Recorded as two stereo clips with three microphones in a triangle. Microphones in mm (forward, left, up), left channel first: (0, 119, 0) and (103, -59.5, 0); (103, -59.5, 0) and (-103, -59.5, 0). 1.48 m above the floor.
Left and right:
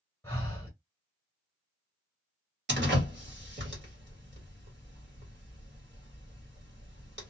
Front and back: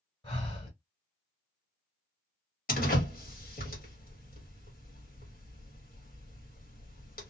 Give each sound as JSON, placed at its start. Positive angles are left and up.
{"t": 0.2, "sound": "breathing", "azimuth_deg": 45, "distance_m": 1.5}
{"t": 2.7, "sound": "a door slam", "azimuth_deg": -40, "distance_m": 1.3}